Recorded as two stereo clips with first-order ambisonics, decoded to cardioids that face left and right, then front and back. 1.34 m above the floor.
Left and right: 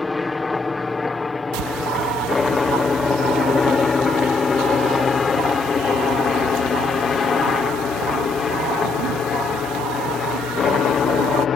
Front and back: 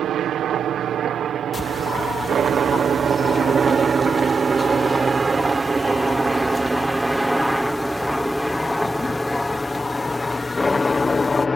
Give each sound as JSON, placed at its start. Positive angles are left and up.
{"t": 0.0, "sound": "a helicopter", "azimuth_deg": 165}
{"t": 1.5, "sound": "a bird", "azimuth_deg": -80}